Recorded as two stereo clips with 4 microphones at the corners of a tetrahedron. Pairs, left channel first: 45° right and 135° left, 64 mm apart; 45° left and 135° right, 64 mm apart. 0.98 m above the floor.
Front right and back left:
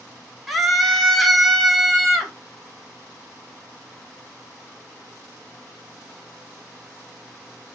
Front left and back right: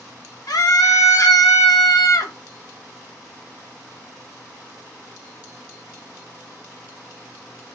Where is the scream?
50° left, 0.9 m.